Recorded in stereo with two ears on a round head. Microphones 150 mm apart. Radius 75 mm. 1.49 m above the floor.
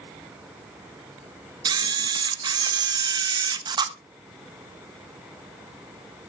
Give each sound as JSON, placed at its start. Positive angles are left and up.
{"t": 1.6, "sound": "a camera shutter", "side_deg": -25, "distance_m": 0.8}